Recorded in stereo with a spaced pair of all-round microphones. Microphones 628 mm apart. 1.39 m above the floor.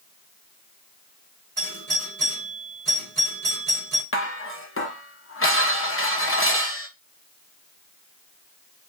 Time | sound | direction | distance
1.6 | a doorbell | 60° right (ahead or behind) | 2.0 m
4.1 | dishes clattering | 20° left (ahead or behind) | 0.6 m